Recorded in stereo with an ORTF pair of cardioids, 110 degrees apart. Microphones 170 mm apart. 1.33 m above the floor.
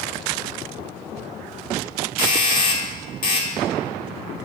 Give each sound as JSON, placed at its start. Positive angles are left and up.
{"t": 2.2, "sound": "a doorbell", "azimuth_deg": 55, "distance_m": 1.9}